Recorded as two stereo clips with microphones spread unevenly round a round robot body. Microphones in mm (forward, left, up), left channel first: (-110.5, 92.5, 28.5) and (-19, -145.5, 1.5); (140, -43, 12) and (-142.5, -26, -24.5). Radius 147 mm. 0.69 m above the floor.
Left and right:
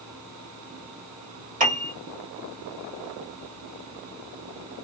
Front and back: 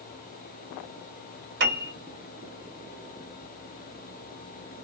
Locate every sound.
1.6 s a piano: 135° right, 1.5 m